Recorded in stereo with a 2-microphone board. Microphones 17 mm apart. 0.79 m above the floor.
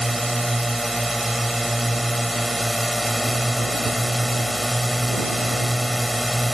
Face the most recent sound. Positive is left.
turn(degrees=0)  # may be behind; listen again after turning